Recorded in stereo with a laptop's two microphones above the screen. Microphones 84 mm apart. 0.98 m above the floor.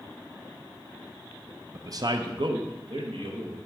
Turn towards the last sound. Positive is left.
turn(degrees=-70)  # may be behind; listen again after turning